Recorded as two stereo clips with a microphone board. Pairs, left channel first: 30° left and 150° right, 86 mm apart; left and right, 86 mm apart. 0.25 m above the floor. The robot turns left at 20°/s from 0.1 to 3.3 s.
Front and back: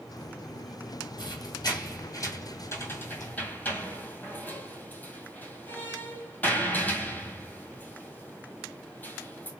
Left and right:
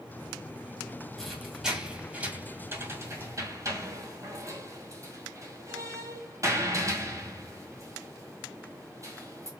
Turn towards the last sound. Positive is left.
turn(degrees=-40)